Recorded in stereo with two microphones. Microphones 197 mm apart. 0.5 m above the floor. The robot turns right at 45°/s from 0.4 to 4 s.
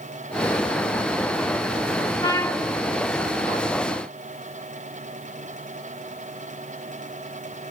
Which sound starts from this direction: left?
A trumpet, at 2.2 s.